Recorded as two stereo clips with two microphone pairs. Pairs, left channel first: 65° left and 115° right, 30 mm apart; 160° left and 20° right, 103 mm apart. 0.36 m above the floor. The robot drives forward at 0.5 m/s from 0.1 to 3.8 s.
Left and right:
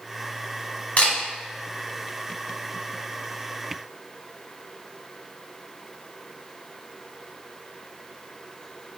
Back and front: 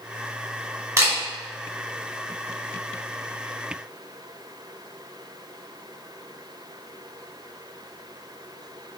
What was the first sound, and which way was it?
A camera shutter, 35° left.